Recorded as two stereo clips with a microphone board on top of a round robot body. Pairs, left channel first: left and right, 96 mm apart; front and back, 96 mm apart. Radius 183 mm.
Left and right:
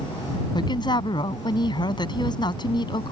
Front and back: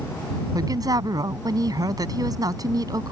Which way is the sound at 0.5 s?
130° left.